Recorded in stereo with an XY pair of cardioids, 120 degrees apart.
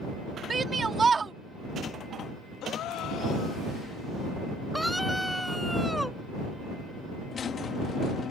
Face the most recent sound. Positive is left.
turn(degrees=45)